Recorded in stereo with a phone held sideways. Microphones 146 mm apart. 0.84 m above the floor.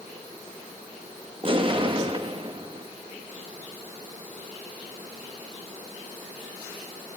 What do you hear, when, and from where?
1.4 s an explosion: 35° right (ahead or behind), 1.0 m